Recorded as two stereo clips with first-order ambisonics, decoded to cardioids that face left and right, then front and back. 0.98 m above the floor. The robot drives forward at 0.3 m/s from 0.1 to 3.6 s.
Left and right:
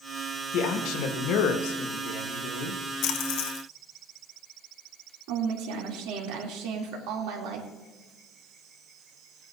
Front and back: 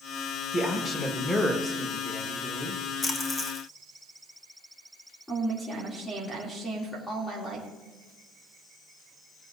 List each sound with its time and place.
0.5 s a man speaking: 65° left, 1.5 m; by 2.8 s 95° left, 1.4 m
3.0 s a splash: 65° left, 0.9 m; by 3.6 s 80° left, 0.8 m
5.3 s a woman speaking: 80° right, 3 m